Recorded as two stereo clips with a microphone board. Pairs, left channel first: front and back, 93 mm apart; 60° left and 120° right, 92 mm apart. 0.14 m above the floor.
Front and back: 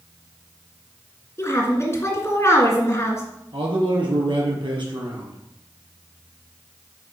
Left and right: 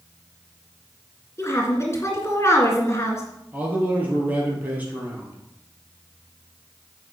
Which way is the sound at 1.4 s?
30° left.